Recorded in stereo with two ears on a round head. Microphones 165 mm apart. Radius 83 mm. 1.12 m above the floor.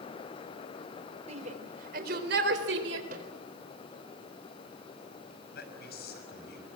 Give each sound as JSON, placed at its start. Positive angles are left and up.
{"t": 1.3, "sound": "a shout", "side_deg": -35, "distance_m": 3.5}
{"t": 3.1, "sound": "a microwave", "side_deg": -50, "distance_m": 4.0}
{"t": 5.5, "sound": "a man speaking", "side_deg": 60, "distance_m": 6.0}